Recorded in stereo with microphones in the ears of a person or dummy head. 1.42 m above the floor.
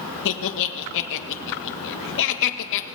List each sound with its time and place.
0.2 s laughter: 60° left (ahead or behind), 1.5 m